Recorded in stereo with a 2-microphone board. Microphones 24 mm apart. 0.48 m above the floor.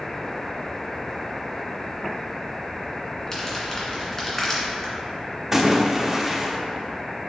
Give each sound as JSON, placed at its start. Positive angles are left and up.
{"t": 3.3, "sound": "crumpling", "side_deg": 20, "distance_m": 1.9}
{"t": 5.5, "sound": "a splash", "side_deg": -15, "distance_m": 0.7}